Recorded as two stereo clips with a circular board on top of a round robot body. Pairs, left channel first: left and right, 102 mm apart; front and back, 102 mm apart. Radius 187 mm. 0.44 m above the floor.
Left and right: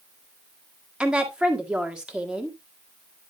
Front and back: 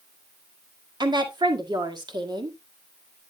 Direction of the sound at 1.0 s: 170° right.